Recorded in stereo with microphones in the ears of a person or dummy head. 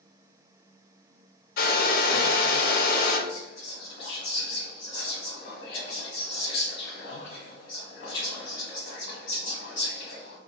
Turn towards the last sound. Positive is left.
turn(degrees=55)  # may be behind; listen again after turning